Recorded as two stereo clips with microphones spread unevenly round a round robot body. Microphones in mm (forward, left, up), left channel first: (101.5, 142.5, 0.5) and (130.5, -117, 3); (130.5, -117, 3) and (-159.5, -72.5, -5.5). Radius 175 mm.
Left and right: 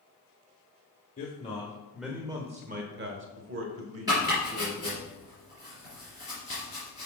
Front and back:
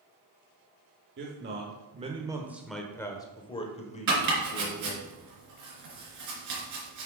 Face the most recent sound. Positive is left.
turn(degrees=-165)